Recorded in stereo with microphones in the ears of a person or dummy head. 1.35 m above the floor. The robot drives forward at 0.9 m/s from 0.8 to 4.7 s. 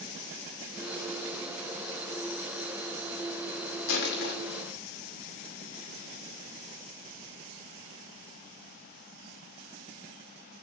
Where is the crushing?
60° left (ahead or behind), 2.5 m; by 4.3 s 55° left (ahead or behind), 3 m.